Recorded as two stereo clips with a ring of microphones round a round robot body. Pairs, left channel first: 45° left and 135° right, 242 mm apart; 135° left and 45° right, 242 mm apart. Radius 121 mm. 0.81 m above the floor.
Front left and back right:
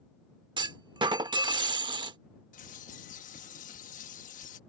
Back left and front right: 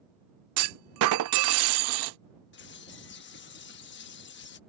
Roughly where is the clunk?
Ahead right.